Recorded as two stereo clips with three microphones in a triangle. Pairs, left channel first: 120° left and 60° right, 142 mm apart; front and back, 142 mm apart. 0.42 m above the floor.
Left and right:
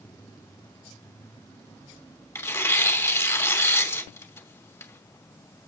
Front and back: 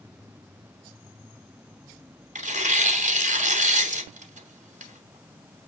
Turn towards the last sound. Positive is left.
turn(degrees=-170)